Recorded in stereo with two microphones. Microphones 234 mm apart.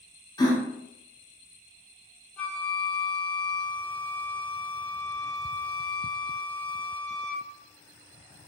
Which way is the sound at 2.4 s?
5° left (ahead or behind).